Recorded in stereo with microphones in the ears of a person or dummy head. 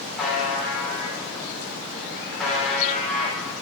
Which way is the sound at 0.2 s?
5° right (ahead or behind).